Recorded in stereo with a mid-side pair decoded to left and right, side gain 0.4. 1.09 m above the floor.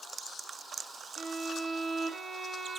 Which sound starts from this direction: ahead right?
A violin, at 1.2 s.